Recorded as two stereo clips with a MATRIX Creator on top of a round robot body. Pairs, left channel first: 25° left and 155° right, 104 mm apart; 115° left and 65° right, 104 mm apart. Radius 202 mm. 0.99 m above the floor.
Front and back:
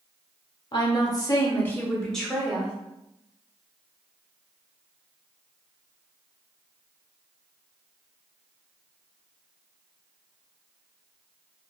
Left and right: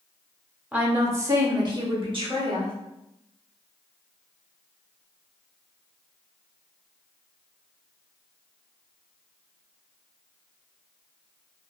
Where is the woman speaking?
5° left, 1.0 m; by 2.7 s 75° right, 1.3 m.